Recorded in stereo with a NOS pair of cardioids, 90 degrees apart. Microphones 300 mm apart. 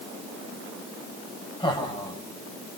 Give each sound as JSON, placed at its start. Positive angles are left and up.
{"t": 1.6, "sound": "laughter", "azimuth_deg": 15, "distance_m": 4.5}